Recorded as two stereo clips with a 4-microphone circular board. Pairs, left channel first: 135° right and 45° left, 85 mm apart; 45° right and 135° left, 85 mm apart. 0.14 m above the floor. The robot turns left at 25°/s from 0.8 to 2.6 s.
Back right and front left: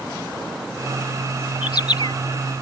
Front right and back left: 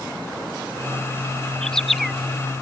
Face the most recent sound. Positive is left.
turn(degrees=-150)